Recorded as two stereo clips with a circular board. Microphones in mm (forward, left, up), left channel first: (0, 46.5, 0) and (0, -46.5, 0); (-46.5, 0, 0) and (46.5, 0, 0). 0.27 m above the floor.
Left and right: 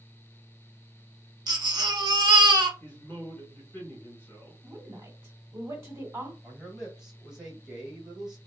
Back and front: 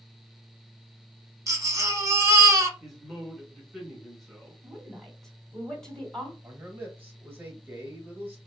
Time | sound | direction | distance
1.5 | a baby crying | 50° right | 0.6 m
2.8 | a man speaking | 90° left | 1.6 m
4.6 | a woman speaking | 100° right | 1.3 m
6.4 | a man speaking | 15° right | 1.0 m